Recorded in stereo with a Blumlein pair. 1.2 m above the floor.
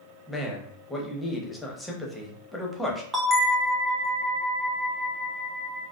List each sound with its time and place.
0.3 s a man speaking: 5° left, 0.8 m
3.1 s a bell: 15° right, 0.6 m